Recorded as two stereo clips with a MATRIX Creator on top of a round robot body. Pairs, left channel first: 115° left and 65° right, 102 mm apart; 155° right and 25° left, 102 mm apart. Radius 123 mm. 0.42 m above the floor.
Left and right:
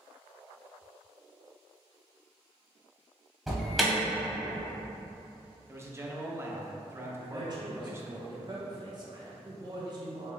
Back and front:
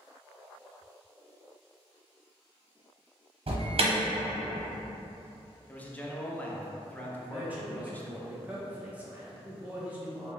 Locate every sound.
3.5 s an alarm: 20° left, 1.1 m
5.7 s a man speaking: 100° right, 0.8 m
7.2 s a man speaking: 45° right, 1.0 m